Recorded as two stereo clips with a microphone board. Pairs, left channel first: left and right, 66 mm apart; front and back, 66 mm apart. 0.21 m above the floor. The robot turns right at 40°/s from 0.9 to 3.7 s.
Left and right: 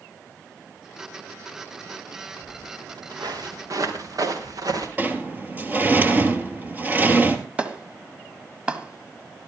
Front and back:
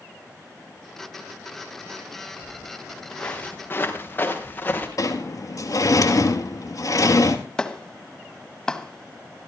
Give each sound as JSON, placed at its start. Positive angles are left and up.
{"t": 2.4, "sound": "footsteps", "azimuth_deg": -105, "distance_m": 3.0}
{"t": 5.0, "sound": "a sliding door", "azimuth_deg": -25, "distance_m": 1.6}
{"t": 7.6, "sound": "a clap", "azimuth_deg": -60, "distance_m": 1.1}